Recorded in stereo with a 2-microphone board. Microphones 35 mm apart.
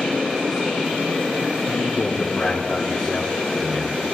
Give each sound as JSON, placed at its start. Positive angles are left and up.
{"t": 1.7, "sound": "a man speaking", "side_deg": 50, "distance_m": 1.8}